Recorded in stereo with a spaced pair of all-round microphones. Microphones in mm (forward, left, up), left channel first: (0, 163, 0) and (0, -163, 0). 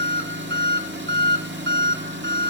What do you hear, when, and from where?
0.0 s an engine running: 35° right (ahead or behind), 2 m